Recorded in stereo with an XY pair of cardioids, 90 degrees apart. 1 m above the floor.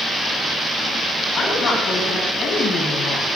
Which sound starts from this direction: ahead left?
A woman speaking, at 1.4 s.